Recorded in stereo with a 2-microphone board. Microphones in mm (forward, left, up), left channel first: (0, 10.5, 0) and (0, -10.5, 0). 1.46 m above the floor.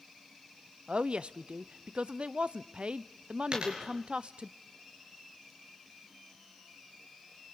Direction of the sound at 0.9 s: 65° right (ahead or behind).